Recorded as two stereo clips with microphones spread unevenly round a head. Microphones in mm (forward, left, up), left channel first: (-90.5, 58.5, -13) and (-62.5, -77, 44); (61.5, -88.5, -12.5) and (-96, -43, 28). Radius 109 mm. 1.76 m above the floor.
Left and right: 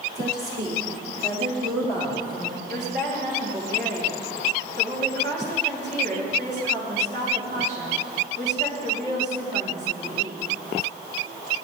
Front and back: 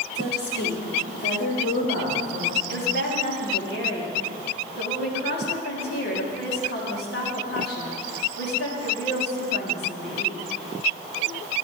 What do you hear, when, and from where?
0.1 s a woman speaking: 35° right, 4 m; by 2.6 s 25° right, 5.5 m
2.7 s a woman speaking: 35° right, 3.5 m